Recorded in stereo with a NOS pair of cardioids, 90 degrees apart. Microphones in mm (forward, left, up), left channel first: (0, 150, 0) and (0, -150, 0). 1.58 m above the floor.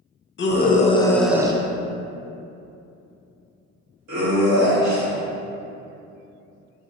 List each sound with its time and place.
0.4 s a scream: 40° left, 0.7 m; by 5.2 s 75° right, 2.5 m